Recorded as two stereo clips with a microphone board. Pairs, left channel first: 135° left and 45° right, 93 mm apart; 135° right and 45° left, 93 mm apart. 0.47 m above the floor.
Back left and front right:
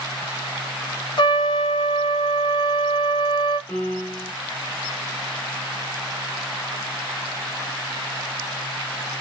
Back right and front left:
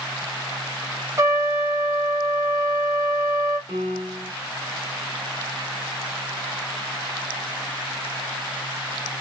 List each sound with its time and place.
1.2 s a trumpet: 100° left, 0.8 m
3.7 s a piano: 70° left, 0.9 m